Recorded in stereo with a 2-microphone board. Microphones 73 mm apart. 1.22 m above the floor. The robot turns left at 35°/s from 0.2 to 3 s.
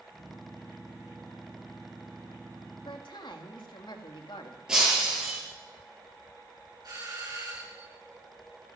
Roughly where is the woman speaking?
Left.